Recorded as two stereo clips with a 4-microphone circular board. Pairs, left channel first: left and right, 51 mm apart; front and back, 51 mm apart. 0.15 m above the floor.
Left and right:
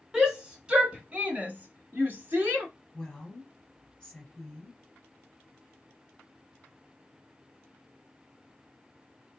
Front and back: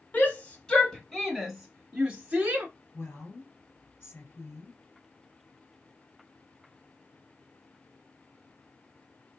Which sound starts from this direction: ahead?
A shout, at 0.1 s.